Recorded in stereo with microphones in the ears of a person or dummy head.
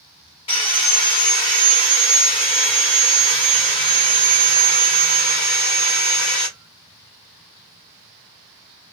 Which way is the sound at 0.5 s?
25° left (ahead or behind).